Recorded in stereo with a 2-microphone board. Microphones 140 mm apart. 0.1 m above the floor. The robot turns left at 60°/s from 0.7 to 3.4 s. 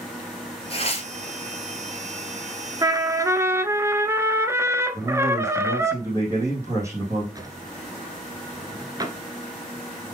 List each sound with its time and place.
0.7 s tearing paper: 45° left (ahead or behind), 1.2 m; by 1.1 s 50° left (ahead or behind), 1.2 m
2.8 s a trumpet: 30° right (ahead or behind), 0.5 m; by 5.9 s 20° right (ahead or behind), 0.5 m
4.9 s a man speaking: 20° right (ahead or behind), 4 m
7.3 s a drawer: 30° right (ahead or behind), 0.7 m